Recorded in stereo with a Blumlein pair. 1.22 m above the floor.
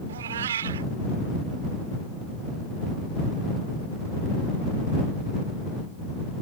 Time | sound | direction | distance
0.1 | a cat meowing | 65° right | ?